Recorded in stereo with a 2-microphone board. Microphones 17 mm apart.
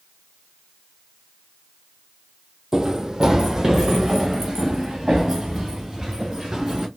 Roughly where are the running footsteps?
Right.